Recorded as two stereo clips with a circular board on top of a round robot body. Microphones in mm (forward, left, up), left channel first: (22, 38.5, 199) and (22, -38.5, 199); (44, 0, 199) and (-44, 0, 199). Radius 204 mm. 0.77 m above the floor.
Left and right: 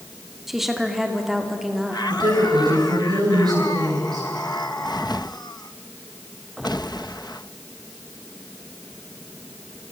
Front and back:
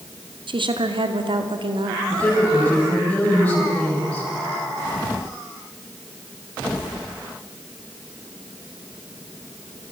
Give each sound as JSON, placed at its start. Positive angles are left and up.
{"t": 0.5, "sound": "a woman speaking", "azimuth_deg": -175, "distance_m": 2.5}
{"t": 2.1, "sound": "a woman speaking", "azimuth_deg": -75, "distance_m": 7.5}